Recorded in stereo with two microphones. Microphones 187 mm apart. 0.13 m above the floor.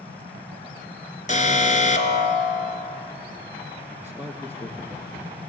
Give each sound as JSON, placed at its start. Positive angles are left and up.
{"t": 1.3, "sound": "an alarm", "side_deg": 40, "distance_m": 1.9}
{"t": 4.0, "sound": "a man speaking", "side_deg": 10, "distance_m": 2.5}